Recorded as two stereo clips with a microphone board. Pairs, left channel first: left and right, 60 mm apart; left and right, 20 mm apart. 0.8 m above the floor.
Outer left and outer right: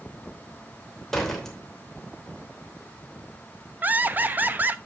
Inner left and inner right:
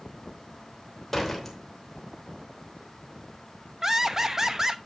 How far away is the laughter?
About 0.6 m.